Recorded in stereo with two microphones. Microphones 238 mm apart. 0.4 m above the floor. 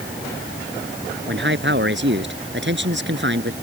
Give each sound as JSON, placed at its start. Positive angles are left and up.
{"t": 1.3, "sound": "a man speaking", "side_deg": -55}